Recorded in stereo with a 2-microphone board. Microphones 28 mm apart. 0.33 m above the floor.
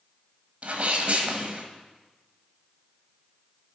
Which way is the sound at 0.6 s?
50° right (ahead or behind).